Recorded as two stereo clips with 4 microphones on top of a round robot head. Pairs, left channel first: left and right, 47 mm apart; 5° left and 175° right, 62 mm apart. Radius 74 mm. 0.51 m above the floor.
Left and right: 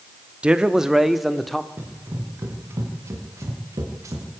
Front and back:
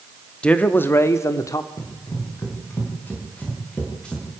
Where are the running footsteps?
45° right, 6.5 m; by 4.3 s 75° right, 6 m.